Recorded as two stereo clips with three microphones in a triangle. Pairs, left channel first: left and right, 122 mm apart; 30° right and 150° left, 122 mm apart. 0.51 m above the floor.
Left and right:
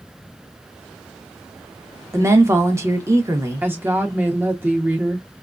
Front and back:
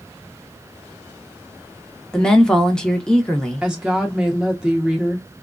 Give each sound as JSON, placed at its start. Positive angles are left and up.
{"t": 2.1, "sound": "a woman speaking", "azimuth_deg": -105, "distance_m": 0.8}
{"t": 3.6, "sound": "a woman speaking", "azimuth_deg": -135, "distance_m": 0.7}